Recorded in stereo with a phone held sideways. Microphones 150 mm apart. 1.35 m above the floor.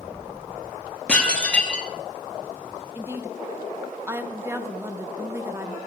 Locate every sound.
1.1 s dishes clattering: 10° left (ahead or behind), 1.4 m
3.0 s a woman speaking: 15° right (ahead or behind), 1.0 m